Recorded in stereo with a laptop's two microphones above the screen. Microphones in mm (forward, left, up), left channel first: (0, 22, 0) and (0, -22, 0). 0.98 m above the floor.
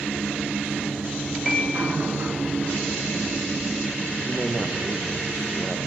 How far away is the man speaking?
About 0.7 m.